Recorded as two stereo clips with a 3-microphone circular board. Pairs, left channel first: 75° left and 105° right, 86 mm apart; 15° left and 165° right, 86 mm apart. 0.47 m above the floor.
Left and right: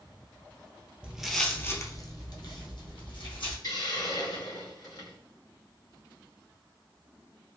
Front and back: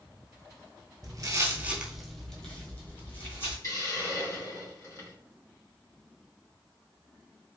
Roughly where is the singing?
I don't hear singing.